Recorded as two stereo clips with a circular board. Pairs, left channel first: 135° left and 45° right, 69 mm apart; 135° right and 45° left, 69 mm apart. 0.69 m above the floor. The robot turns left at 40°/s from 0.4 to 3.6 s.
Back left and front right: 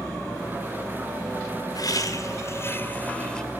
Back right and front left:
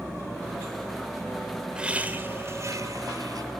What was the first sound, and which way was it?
Laughter, 120° left.